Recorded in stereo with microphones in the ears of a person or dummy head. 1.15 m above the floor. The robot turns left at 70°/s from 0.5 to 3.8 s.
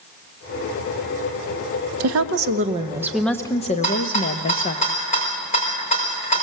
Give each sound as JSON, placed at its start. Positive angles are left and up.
{"t": 2.0, "sound": "a woman speaking", "azimuth_deg": -95, "distance_m": 1.3}
{"t": 3.8, "sound": "a rattle", "side_deg": 35, "distance_m": 4.5}